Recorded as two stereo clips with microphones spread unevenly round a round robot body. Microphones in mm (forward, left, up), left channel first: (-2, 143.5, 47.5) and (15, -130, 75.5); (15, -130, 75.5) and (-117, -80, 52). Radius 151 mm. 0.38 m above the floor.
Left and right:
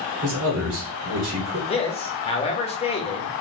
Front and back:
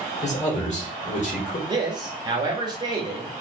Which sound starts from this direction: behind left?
A man speaking, at 1.7 s.